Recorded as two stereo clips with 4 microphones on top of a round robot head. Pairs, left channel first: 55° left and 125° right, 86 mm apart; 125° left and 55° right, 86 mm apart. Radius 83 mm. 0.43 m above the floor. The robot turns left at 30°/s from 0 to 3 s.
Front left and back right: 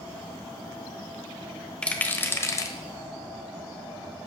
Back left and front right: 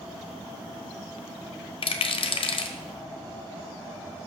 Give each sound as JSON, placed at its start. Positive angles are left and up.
{"t": 1.8, "sound": "a rattle", "azimuth_deg": 135, "distance_m": 1.1}